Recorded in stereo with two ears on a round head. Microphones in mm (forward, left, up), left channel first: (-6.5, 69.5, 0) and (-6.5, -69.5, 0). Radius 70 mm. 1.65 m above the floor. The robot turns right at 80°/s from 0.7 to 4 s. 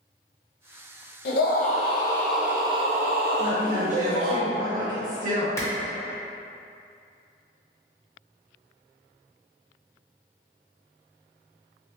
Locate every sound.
1.2 s a scream: 95° left, 0.6 m; by 4.4 s 45° right, 0.6 m
3.4 s a woman speaking: 170° right, 1.5 m; by 5.5 s 125° right, 1.5 m
5.6 s a clap: 20° left (ahead or behind), 0.7 m